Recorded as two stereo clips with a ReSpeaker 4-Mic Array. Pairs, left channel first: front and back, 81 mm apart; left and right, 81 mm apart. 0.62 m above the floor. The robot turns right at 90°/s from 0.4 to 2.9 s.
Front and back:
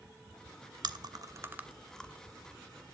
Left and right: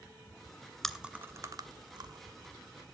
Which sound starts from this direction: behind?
Chewing, at 0.8 s.